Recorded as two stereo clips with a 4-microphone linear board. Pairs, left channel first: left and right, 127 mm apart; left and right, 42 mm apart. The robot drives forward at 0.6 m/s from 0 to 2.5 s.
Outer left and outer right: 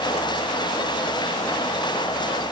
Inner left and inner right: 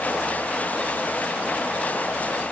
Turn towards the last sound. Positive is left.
No sound to turn to.